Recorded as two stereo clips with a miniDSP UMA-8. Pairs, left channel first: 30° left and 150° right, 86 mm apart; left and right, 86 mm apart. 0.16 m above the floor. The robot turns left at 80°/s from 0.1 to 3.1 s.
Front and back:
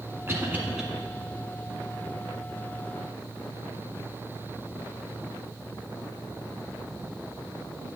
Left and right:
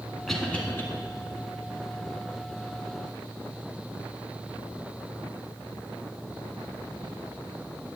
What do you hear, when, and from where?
0.3 s a cough: 175° left, 1.5 m; by 0.8 s 130° left, 1.5 m